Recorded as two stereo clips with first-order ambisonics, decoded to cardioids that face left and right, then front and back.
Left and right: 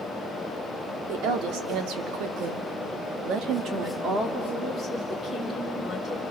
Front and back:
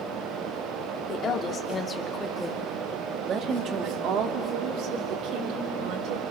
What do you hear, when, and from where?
1.1 s a woman speaking: 55° right, 2.5 m; by 6.2 s 170° right, 4 m